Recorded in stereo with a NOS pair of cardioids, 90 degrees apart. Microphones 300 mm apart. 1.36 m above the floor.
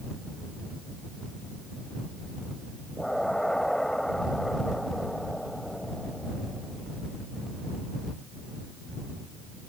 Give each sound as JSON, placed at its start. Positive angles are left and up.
{"t": 3.0, "sound": "an explosion", "azimuth_deg": 0}